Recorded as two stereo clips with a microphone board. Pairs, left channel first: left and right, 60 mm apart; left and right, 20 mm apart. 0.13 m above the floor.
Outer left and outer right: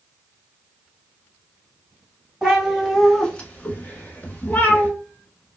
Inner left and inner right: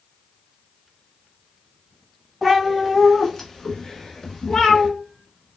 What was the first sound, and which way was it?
A cat meowing, 5° right (ahead or behind).